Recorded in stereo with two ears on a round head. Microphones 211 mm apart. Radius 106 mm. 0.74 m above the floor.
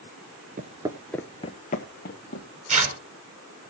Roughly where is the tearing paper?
Right.